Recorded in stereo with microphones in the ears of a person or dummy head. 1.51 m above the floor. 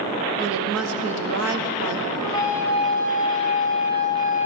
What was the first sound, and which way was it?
A woman speaking, 80° right.